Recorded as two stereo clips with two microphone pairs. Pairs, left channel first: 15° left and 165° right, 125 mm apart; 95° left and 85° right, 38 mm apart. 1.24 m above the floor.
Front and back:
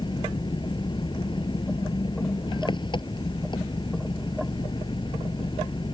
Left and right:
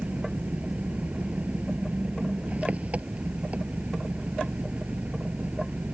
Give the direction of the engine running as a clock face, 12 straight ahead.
1 o'clock.